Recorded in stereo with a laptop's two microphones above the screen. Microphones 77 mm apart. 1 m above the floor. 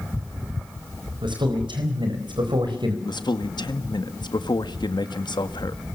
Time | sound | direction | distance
1.2 | a man speaking | 80° right | 4 m
3.0 | a man speaking | 70° left (ahead or behind) | 1.9 m